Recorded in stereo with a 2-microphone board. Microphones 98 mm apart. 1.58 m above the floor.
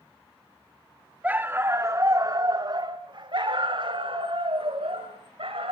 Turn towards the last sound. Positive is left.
turn(degrees=-70)  # may be behind; listen again after turning